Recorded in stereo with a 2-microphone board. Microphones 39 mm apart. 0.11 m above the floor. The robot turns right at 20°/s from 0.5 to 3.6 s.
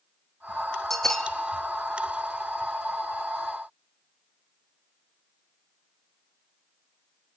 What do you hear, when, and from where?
0.9 s a bell: 10° left (ahead or behind), 1.1 m; by 1.3 s 15° left (ahead or behind), 1.1 m